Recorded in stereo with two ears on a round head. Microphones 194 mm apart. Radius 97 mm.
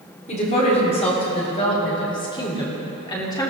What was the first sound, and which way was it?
A woman speaking, 35° left (ahead or behind).